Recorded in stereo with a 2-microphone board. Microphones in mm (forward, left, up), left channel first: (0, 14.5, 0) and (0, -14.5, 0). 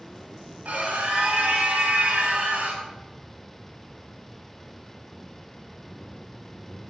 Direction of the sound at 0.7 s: 60° right (ahead or behind).